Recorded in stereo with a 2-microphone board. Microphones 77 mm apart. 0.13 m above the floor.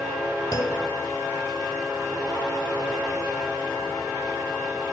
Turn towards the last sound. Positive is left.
turn(degrees=45)  # may be behind; listen again after turning